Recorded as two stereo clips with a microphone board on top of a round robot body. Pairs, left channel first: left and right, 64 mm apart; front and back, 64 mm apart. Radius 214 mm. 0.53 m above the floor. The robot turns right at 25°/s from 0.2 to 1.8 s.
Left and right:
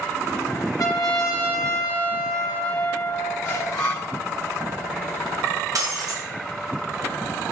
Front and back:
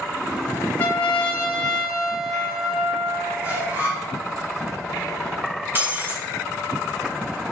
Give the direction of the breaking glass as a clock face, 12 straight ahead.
4 o'clock.